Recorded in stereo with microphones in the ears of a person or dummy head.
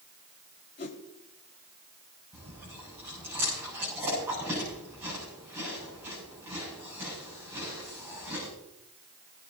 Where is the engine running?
I don't hear an engine running.